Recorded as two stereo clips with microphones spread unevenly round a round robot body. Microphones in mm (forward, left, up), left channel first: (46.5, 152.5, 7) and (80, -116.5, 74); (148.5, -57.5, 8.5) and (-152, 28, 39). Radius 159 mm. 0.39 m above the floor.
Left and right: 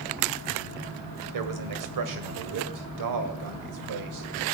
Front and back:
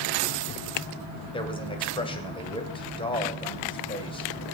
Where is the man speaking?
85° right, 2 m.